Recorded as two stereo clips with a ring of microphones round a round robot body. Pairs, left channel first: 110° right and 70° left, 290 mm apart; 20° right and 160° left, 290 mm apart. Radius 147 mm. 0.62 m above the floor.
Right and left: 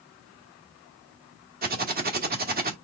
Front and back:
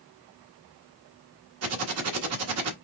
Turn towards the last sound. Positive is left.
turn(degrees=125)